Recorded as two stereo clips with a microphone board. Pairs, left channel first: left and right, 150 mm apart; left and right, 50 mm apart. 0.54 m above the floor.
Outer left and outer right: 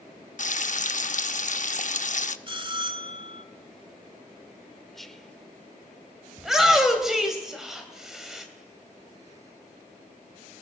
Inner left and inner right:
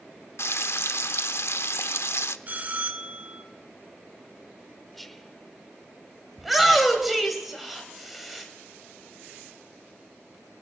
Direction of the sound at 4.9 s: Centre (ahead or behind).